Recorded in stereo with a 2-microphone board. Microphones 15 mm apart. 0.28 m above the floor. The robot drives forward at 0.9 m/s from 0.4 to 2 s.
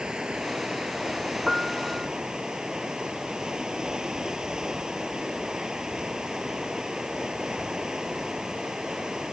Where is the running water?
60° right (ahead or behind); by 9.3 s 50° right (ahead or behind).